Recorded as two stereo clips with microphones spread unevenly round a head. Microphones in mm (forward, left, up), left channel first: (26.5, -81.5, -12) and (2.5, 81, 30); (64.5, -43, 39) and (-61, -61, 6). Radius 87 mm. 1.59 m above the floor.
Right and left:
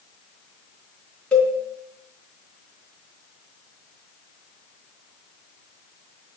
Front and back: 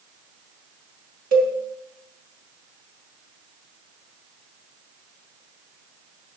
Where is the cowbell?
170° right, 4 m.